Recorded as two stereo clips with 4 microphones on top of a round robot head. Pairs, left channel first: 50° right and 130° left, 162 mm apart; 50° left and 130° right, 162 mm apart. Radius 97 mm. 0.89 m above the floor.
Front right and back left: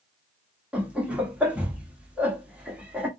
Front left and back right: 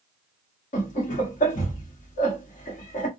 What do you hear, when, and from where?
0.7 s laughter: 50° left, 1.3 m